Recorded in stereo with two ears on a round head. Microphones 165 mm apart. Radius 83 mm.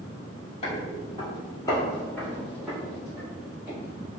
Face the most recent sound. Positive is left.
turn(degrees=-15)  # may be behind; listen again after turning